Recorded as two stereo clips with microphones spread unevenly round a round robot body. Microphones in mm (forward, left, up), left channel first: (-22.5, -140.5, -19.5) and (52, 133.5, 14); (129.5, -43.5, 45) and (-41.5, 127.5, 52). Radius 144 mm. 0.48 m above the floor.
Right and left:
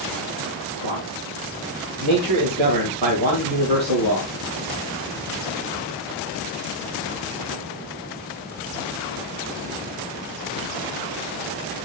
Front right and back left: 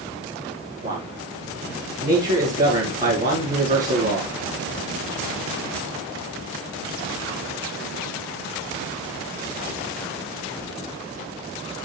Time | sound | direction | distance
0.8 | a man speaking | 80° left | 4.5 m